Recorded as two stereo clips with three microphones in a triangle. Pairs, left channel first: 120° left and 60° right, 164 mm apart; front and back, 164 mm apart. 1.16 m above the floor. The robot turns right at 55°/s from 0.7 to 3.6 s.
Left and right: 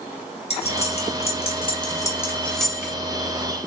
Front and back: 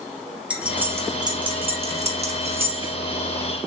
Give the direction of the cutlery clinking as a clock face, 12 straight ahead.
9 o'clock.